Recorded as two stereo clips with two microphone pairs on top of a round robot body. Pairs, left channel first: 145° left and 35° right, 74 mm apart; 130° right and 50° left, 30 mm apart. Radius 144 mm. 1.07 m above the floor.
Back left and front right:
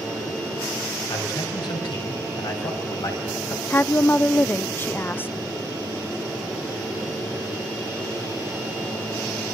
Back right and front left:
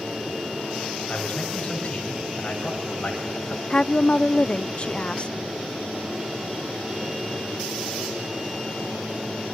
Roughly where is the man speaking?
Behind.